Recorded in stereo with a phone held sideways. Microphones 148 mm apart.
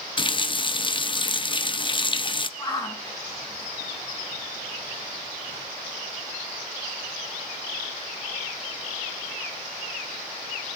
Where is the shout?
25° left (ahead or behind), 9 m.